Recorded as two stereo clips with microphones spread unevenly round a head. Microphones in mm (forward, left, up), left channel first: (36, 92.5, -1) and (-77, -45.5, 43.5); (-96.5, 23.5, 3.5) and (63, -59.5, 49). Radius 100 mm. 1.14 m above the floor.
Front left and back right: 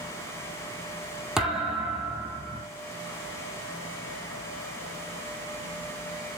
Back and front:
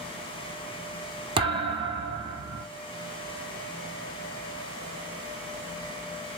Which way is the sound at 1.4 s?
55° right.